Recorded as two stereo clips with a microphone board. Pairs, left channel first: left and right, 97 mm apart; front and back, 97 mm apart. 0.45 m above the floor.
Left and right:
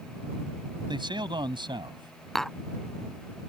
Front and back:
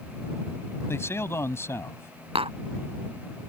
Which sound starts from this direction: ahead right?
A man speaking, at 0.9 s.